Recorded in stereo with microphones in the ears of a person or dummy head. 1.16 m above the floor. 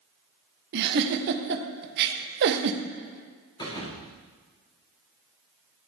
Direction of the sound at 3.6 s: 25° left (ahead or behind).